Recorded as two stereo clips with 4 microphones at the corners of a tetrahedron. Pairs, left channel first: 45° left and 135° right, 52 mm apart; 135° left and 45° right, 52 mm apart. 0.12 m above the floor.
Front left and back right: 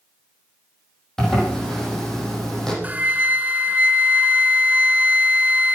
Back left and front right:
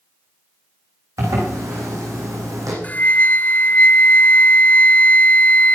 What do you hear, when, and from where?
1.2 s a zipper: 35° right, 6 m
2.8 s a flute: straight behind, 0.8 m